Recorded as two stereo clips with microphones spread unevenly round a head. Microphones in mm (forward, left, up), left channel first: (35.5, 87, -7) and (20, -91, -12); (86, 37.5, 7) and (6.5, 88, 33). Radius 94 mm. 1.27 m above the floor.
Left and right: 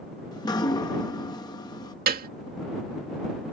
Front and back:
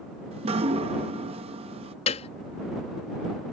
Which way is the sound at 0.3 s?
155° left.